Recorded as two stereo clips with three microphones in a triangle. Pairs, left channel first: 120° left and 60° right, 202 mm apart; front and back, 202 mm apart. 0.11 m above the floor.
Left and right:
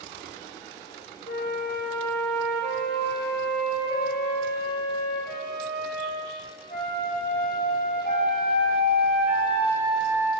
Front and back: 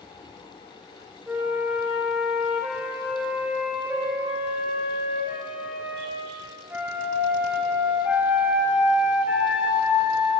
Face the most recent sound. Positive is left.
turn(degrees=100)